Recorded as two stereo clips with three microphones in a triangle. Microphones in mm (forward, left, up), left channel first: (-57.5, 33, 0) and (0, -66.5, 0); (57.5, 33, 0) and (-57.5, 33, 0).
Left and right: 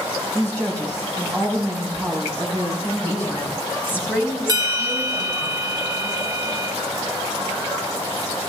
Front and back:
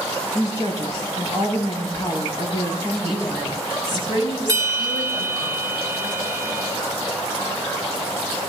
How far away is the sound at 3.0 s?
About 7.5 m.